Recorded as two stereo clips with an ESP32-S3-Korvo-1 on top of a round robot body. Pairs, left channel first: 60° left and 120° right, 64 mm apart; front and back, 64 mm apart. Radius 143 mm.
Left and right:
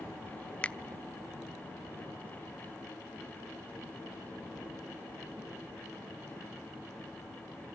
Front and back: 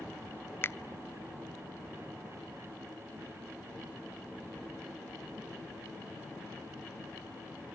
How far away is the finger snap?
About 0.9 m.